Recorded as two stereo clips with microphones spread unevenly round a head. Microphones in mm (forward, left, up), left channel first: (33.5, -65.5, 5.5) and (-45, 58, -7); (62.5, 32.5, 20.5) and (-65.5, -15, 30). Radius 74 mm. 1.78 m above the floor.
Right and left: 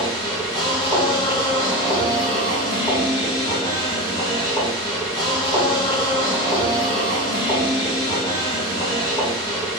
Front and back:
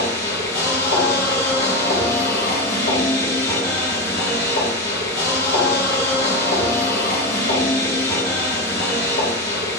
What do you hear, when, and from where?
0.0 s a machine running: 5° left, 0.9 m